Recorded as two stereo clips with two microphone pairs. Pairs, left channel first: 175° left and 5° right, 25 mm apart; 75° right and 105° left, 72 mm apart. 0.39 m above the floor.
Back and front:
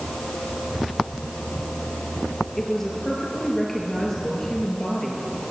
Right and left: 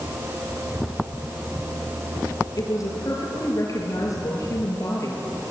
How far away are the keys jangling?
No keys jangling in this recording.